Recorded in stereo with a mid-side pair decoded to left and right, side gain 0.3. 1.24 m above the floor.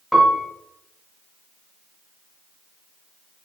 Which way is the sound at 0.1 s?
Straight ahead.